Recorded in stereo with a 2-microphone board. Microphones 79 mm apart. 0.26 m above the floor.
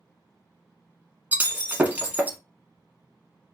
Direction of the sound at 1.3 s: 20° right (ahead or behind).